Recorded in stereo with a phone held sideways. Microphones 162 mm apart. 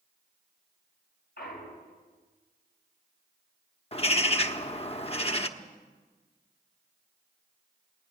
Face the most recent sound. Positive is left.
turn(degrees=40)  # may be behind; listen again after turning